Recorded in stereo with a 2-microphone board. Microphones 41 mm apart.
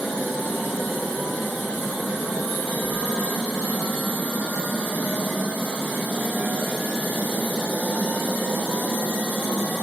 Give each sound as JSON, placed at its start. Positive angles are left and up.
{"t": 2.8, "sound": "a whoosh", "side_deg": 40, "distance_m": 3.5}